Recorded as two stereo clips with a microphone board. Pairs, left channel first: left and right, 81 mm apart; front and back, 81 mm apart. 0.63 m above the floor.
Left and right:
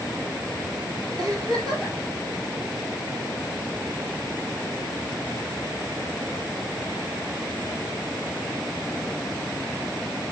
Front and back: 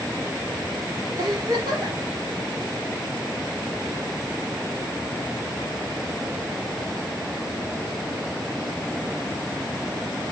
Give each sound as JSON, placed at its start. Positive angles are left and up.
{"t": 1.2, "sound": "a giggle", "azimuth_deg": -130, "distance_m": 2.5}